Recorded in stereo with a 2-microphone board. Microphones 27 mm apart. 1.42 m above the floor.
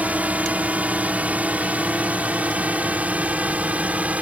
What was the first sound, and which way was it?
A drone, 65° right (ahead or behind).